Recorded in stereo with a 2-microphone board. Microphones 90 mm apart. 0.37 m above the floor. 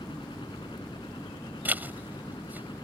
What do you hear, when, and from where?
0.0 s a helicopter: 65° left (ahead or behind)
1.6 s a zipper: 20° right (ahead or behind)